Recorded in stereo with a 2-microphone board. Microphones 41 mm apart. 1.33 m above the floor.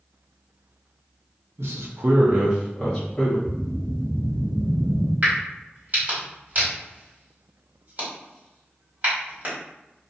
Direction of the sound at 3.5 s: 35° right (ahead or behind).